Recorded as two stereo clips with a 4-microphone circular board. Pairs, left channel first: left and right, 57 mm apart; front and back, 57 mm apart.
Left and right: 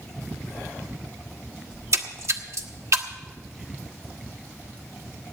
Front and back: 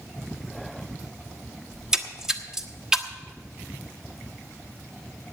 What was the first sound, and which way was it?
A splash, 100° right.